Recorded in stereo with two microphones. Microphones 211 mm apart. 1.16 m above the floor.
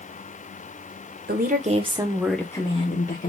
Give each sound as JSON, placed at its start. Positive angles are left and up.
{"t": 1.3, "sound": "a woman speaking", "side_deg": -45, "distance_m": 0.8}